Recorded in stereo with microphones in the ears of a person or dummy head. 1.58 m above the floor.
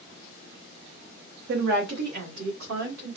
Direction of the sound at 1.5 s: 60° right (ahead or behind).